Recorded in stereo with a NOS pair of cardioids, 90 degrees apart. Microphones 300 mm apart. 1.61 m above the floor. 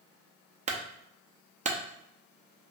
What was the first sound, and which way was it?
A clunk, 25° right.